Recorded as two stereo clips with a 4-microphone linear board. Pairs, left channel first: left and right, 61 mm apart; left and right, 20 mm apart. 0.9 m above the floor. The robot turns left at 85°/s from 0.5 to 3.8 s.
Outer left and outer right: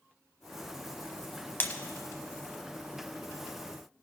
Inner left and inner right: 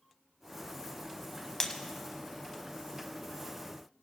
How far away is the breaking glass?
About 1.0 m.